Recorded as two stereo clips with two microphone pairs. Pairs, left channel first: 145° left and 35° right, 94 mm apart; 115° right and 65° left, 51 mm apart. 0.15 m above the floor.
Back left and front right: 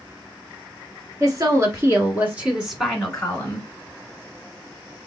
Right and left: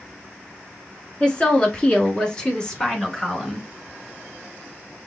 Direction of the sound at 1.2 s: 60° right.